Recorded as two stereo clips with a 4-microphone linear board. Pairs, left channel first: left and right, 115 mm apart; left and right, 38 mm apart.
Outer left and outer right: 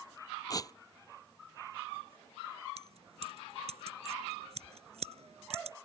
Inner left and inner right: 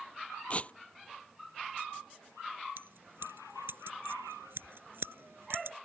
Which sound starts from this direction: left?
Tearing paper, at 0.5 s.